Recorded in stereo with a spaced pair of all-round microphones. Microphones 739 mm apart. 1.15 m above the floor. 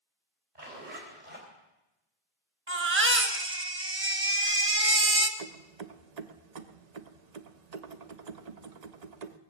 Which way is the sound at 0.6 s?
85° right.